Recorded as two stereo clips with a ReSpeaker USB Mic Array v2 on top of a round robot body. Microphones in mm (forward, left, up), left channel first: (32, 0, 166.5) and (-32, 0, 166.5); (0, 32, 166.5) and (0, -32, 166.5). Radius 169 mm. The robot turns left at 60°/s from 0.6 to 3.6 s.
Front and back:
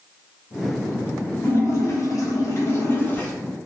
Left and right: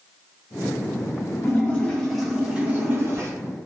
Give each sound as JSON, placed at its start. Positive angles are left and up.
{"t": 1.4, "sound": "a splash", "azimuth_deg": 45, "distance_m": 1.2}